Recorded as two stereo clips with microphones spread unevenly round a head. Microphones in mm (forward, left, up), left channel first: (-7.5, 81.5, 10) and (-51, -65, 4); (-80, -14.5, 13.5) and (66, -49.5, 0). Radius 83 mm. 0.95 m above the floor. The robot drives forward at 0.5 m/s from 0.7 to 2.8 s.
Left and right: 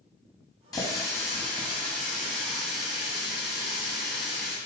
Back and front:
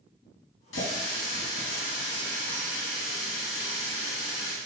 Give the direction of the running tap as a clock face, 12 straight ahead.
7 o'clock.